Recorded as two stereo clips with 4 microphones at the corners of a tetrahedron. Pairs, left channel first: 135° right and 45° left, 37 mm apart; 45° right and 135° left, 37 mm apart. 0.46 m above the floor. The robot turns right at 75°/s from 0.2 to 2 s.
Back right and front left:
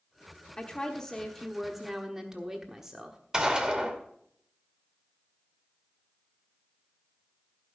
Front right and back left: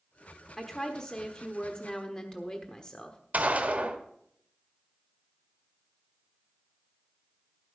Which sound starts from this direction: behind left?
A gunshot, at 3.3 s.